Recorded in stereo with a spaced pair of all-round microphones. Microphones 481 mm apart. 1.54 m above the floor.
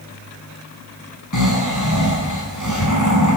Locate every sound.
1.3 s snoring: 40° left (ahead or behind), 6.5 m